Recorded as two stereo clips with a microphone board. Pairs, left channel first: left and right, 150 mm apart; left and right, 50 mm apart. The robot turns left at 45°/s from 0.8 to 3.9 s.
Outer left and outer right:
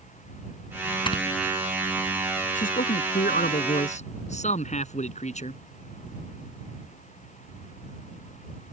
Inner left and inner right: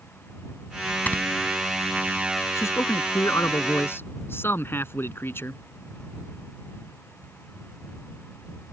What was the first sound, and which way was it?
Snoring, 35° left (ahead or behind).